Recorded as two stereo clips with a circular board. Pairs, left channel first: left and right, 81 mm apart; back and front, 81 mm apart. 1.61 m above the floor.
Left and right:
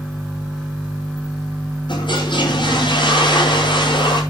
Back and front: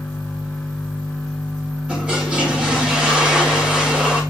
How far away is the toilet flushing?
About 5.5 m.